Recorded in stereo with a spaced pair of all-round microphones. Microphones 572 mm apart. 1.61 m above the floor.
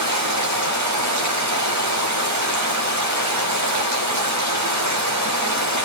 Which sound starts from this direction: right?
Running water, at 0.0 s.